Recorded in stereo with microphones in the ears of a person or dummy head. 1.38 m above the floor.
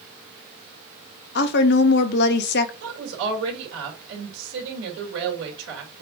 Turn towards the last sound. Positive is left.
turn(degrees=-85)